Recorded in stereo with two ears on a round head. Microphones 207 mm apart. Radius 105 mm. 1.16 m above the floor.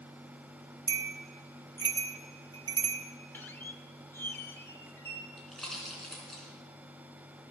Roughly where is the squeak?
Centre.